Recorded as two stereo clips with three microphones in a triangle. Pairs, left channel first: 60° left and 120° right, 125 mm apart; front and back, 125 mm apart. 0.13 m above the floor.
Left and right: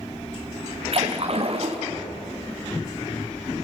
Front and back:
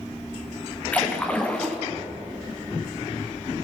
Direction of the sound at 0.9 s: 80° right.